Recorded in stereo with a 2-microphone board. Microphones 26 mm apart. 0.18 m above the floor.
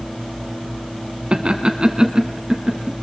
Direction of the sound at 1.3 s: 40° right (ahead or behind).